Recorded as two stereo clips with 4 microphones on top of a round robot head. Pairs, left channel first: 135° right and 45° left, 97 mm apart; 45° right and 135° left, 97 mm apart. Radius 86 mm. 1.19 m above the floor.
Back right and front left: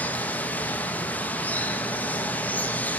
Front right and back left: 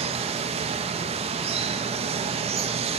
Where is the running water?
150° left, 1.3 m.